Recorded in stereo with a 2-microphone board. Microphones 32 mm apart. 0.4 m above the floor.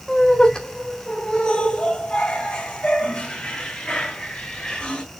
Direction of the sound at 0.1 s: 15° left (ahead or behind).